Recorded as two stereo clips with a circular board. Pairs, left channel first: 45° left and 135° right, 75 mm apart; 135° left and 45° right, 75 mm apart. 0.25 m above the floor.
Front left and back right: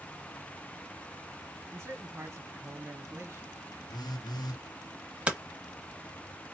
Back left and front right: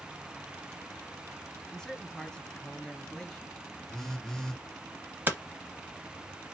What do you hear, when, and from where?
1.7 s a man speaking: 150° right, 1.8 m
3.9 s a phone buzzing: 50° left, 0.9 m
5.3 s hammering: 75° right, 1.0 m